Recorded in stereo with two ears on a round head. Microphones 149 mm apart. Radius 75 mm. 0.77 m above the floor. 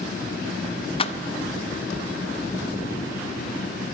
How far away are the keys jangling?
About 0.6 m.